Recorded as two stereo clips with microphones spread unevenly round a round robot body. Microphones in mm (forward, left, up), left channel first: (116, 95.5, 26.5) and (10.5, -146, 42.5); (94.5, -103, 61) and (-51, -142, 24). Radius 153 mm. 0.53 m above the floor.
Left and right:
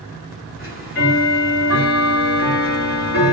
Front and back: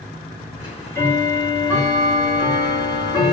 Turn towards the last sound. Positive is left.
turn(degrees=95)